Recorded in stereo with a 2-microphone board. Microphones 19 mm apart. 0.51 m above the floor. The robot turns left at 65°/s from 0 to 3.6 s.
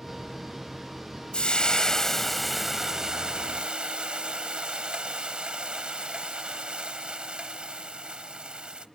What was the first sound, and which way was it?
Frying, 70° left.